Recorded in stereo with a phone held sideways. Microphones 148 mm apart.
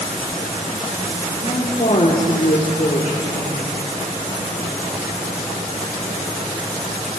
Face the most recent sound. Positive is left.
turn(degrees=55)  # may be behind; listen again after turning